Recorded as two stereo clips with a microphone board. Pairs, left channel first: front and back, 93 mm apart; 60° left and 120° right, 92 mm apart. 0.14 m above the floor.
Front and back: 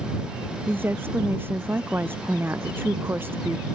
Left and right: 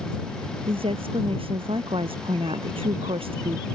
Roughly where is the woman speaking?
Right.